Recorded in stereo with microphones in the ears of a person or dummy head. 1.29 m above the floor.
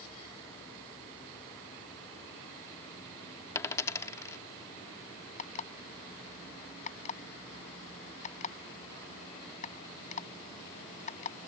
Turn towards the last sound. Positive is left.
turn(degrees=35)  # may be behind; listen again after turning